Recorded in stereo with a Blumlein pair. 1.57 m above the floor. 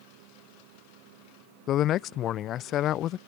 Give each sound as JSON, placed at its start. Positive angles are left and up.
{"t": 1.7, "sound": "a man speaking", "azimuth_deg": 30}